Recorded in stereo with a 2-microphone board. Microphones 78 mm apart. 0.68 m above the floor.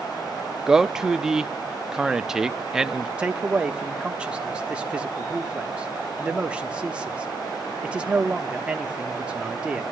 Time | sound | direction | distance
0.7 | a man speaking | 5° right (ahead or behind) | 0.6 m
3.2 | a man speaking | 15° right (ahead or behind) | 1.1 m